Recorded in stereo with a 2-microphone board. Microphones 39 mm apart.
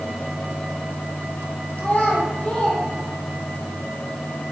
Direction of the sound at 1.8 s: 40° left (ahead or behind).